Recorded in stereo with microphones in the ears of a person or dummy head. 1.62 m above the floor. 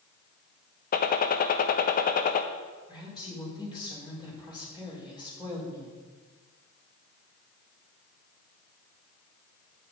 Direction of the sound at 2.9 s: 25° left (ahead or behind).